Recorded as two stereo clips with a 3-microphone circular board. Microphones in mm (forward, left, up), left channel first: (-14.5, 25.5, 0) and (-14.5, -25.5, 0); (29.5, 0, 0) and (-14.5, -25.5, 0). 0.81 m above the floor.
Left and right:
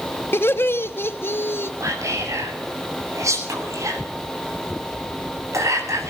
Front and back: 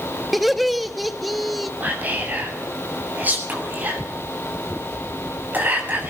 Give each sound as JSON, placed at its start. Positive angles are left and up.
{"t": 0.3, "sound": "laughter", "azimuth_deg": 125, "distance_m": 1.2}
{"t": 1.8, "sound": "whispering", "azimuth_deg": -95, "distance_m": 7.5}